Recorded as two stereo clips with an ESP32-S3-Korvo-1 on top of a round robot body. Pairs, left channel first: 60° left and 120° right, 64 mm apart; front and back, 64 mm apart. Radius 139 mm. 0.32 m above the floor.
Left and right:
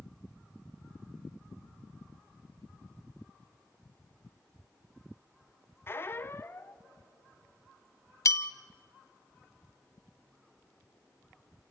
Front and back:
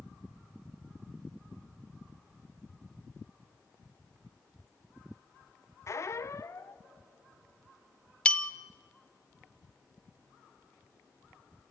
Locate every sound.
5.9 s a squeak: 20° left, 0.9 m
8.2 s a bell: 70° left, 1.0 m